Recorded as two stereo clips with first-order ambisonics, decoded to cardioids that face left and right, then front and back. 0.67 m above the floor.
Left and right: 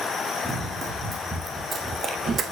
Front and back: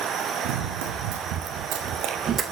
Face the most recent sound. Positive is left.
turn(degrees=-120)